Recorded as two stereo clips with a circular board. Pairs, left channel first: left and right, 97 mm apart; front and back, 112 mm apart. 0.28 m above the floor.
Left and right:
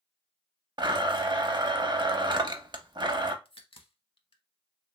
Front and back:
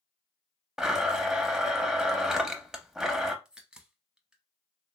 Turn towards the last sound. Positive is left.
turn(degrees=100)